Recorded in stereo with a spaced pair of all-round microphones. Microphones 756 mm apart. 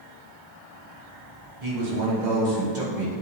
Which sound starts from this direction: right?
A man speaking, at 1.6 s.